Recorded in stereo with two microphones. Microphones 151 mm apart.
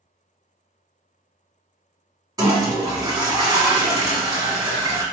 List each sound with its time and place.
2.4 s a toilet flushing: 25° right (ahead or behind), 1.2 m